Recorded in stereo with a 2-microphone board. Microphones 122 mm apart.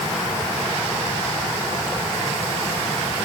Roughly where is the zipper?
No zipper in this recording.